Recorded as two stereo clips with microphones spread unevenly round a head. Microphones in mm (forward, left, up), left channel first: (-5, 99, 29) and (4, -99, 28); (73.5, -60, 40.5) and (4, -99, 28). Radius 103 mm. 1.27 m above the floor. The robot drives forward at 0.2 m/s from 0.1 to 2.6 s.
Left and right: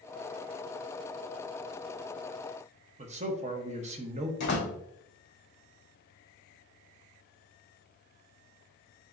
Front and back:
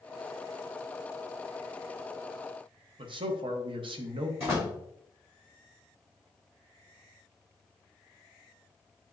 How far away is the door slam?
About 2 m.